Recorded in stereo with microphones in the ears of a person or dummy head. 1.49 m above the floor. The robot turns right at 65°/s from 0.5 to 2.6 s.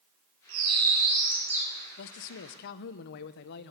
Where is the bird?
80° right, 6.5 m; by 1.7 s straight ahead, 6.5 m.